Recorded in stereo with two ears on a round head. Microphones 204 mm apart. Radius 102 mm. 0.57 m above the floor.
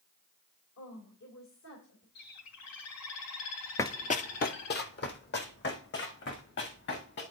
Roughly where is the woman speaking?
Left.